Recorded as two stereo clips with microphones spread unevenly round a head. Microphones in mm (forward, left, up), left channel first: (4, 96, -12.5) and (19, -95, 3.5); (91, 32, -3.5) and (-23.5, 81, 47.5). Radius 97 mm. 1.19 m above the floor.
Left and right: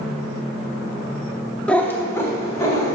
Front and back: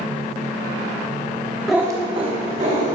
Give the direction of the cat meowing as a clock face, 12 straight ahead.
6 o'clock.